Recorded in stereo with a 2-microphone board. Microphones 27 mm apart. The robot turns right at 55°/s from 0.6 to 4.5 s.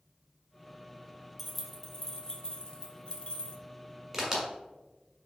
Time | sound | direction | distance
1.4 | keys jangling | 10° right (ahead or behind) | 0.6 m
4.1 | a crack | 5° right (ahead or behind) | 1.6 m